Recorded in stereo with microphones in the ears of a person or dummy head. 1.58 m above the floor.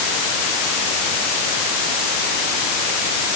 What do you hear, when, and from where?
Only background noise.